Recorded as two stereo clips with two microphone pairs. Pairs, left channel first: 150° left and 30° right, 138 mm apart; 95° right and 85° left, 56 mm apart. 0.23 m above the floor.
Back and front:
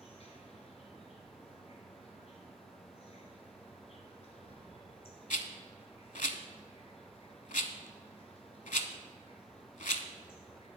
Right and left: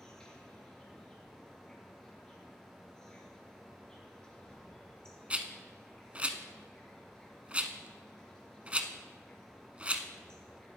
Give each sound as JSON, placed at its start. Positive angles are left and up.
{"t": 0.0, "sound": "an insect", "azimuth_deg": -175, "distance_m": 1.9}
{"t": 5.3, "sound": "a rattle", "azimuth_deg": 150, "distance_m": 0.7}